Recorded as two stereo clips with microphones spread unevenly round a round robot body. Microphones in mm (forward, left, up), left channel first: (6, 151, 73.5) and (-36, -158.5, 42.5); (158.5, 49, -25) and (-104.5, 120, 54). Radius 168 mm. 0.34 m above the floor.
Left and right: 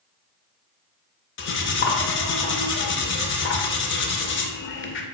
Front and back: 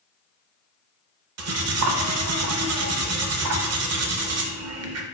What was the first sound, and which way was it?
Cutlery clinking, 130° left.